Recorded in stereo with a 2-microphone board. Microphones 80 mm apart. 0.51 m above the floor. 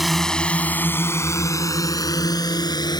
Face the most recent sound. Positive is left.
turn(degrees=65)  # may be behind; listen again after turning